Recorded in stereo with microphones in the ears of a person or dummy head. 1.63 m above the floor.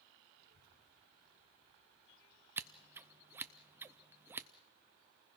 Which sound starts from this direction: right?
A child speaking, at 0.4 s.